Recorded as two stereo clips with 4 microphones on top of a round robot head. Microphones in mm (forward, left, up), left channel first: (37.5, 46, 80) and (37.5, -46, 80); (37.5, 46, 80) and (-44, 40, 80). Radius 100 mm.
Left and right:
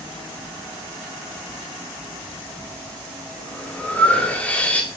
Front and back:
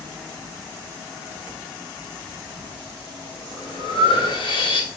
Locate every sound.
2.2 s breathing: 15° left, 2.5 m